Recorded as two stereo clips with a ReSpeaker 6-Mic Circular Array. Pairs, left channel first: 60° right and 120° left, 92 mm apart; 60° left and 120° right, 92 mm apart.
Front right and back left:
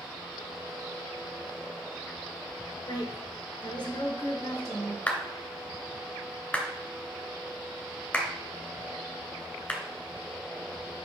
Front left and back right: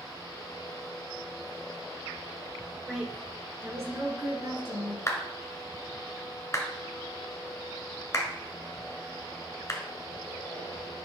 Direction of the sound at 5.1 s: 10° left.